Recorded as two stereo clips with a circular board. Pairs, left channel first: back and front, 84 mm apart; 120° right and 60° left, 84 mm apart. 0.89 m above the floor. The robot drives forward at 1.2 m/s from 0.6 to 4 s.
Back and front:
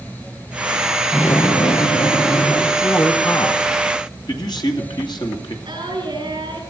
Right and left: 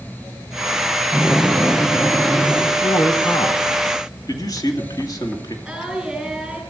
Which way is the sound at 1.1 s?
115° left.